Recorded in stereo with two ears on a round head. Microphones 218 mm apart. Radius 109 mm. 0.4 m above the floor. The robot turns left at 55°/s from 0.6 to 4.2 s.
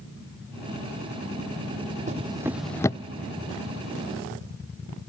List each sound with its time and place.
2.1 s a drawer: 30° right (ahead or behind); by 3.0 s 20° left (ahead or behind)